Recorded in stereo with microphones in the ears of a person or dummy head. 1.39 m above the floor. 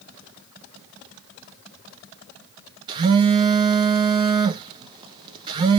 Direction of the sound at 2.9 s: 25° right (ahead or behind).